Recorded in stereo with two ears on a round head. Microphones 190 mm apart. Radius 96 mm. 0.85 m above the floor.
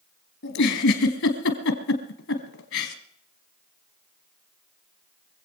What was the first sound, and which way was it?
A giggle, 55° left (ahead or behind).